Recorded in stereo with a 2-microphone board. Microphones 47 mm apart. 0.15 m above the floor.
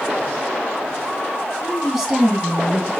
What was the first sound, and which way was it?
A woman speaking, 15° right (ahead or behind).